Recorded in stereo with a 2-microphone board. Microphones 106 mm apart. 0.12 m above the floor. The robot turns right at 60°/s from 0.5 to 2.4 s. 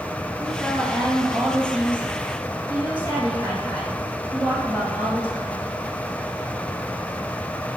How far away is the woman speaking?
About 2.5 m.